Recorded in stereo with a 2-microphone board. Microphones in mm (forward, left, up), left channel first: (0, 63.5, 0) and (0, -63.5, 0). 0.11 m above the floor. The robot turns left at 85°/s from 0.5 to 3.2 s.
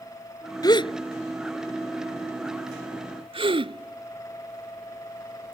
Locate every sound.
0.6 s a gasp: 30° left (ahead or behind); by 5.5 s 40° right (ahead or behind)